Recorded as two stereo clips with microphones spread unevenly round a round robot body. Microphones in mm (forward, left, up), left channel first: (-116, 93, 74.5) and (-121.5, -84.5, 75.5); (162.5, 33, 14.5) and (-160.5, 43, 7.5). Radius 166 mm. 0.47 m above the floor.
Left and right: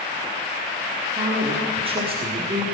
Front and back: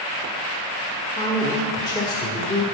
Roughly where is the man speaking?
Right.